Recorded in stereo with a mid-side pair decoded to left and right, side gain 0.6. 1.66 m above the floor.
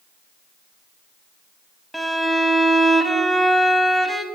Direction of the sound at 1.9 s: 5° right.